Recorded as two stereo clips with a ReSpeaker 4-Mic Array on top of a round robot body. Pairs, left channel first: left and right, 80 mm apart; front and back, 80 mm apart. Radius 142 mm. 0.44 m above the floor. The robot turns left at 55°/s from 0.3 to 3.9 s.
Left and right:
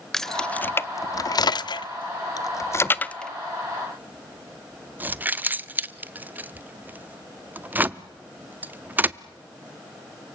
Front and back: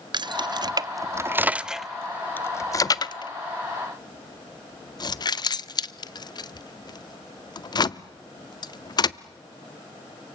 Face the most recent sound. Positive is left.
turn(degrees=-25)